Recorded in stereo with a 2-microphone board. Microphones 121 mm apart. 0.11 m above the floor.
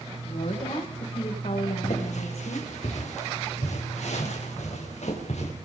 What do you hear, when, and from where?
0.2 s a woman speaking: 65° left (ahead or behind), 9.5 m; by 2.7 s 55° left (ahead or behind), 8.5 m
1.8 s footsteps: 75° left (ahead or behind), 5.5 m; by 5.5 s 65° left (ahead or behind), 9 m